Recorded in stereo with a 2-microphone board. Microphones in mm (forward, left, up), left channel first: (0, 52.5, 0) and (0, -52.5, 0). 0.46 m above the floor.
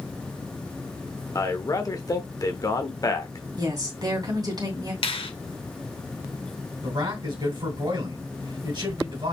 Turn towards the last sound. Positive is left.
turn(degrees=-45)  # may be behind; listen again after turning